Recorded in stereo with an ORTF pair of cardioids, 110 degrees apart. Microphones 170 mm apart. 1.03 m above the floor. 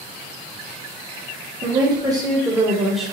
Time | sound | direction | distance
1.6 | a woman speaking | 25° right | 1.7 m